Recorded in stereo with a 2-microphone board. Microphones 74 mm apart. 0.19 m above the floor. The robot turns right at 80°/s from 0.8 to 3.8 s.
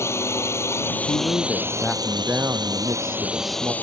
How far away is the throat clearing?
I don't hear throat clearing.